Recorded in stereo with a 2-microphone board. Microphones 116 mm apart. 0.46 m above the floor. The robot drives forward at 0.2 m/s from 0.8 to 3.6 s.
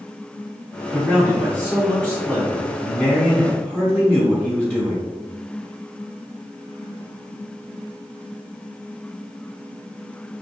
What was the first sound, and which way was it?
A man speaking, centre (ahead or behind).